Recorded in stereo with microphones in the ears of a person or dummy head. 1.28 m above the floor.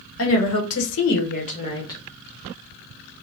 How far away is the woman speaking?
About 1.2 m.